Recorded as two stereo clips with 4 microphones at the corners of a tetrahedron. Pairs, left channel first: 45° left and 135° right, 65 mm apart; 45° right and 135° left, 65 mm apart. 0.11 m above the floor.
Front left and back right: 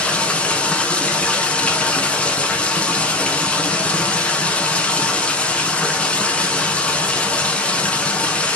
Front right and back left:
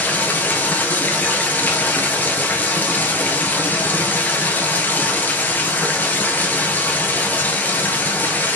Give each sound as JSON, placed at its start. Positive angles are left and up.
{"t": 0.0, "sound": "running water", "azimuth_deg": -10, "distance_m": 1.0}